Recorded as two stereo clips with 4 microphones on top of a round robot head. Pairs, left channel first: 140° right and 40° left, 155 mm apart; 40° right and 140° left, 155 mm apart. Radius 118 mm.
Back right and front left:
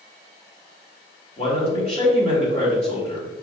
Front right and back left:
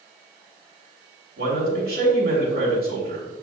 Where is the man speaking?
165° left, 3 m.